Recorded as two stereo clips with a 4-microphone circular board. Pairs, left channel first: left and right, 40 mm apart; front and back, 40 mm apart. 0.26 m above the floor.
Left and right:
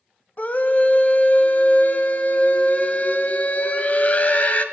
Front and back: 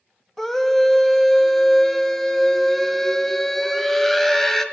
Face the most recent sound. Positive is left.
turn(degrees=80)